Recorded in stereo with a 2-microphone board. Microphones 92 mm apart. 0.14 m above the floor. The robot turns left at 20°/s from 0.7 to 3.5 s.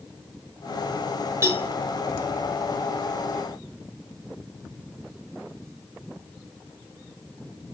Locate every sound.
1.4 s a cowbell: 30° right (ahead or behind), 3 m; by 1.7 s 35° right (ahead or behind), 3 m